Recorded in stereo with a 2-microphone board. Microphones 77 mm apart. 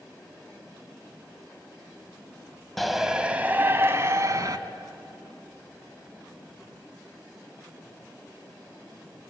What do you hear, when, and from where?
2.8 s a shout: centre (ahead or behind), 1.4 m; by 4.6 s 45° right (ahead or behind), 2 m